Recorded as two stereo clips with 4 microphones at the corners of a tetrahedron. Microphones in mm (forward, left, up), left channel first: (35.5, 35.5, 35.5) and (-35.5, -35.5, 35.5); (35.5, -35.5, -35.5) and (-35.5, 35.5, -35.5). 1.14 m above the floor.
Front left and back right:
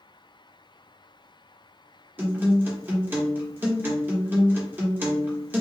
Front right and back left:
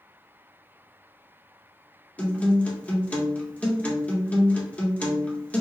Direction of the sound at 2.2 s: 100° right.